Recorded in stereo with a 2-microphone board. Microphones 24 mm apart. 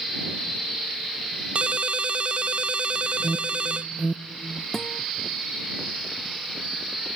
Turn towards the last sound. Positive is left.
turn(degrees=20)  # may be behind; listen again after turning